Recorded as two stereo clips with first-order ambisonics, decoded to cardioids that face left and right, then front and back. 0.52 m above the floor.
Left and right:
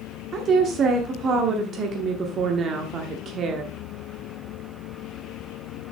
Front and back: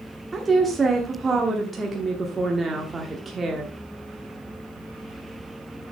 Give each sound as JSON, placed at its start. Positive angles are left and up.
{"t": 0.3, "sound": "a woman speaking", "azimuth_deg": -115, "distance_m": 1.0}